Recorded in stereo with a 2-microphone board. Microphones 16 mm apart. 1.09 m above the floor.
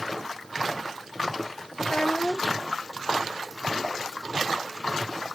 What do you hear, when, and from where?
1.8 s a child speaking: 70° left (ahead or behind)